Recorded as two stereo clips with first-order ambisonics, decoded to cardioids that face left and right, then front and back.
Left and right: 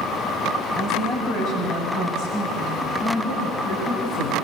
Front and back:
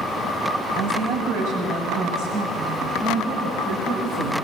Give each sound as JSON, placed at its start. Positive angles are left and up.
{"t": 0.8, "sound": "a woman speaking", "azimuth_deg": 155, "distance_m": 6.5}